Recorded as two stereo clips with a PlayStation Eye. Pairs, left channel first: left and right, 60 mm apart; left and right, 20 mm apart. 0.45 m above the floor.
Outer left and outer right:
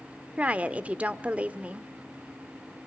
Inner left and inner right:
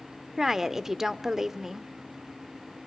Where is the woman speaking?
25° right (ahead or behind), 0.9 m.